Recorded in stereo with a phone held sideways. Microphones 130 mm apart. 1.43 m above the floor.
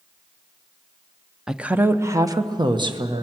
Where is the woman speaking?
5° right (ahead or behind), 0.8 m; by 3.2 s 40° right (ahead or behind), 1.5 m.